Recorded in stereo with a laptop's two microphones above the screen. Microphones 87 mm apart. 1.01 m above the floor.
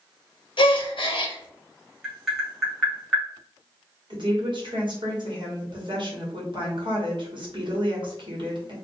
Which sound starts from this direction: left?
A gasp, at 0.6 s.